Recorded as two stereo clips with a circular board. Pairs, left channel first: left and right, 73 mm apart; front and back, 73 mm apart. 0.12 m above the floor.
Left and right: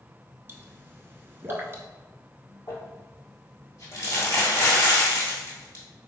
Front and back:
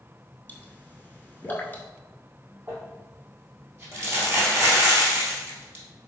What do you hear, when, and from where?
0.5 s a pop: 50° right, 0.6 m
2.7 s crumpling: 130° left, 1.8 m